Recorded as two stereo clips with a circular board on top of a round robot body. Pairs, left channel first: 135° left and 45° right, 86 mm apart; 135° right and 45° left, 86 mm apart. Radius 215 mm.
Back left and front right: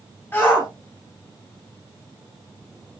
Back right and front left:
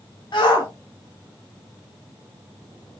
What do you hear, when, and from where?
0.3 s a shout: 160° right, 3 m